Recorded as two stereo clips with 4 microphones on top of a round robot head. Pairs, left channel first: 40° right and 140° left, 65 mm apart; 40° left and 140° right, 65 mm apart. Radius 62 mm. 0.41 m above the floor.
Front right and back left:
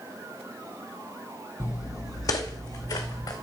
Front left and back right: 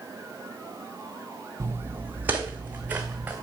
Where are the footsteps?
85° right, 0.7 m; by 3.3 s 65° right, 2.5 m.